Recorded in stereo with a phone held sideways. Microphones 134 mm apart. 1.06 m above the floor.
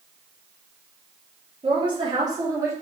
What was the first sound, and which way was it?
A woman speaking, 35° right (ahead or behind).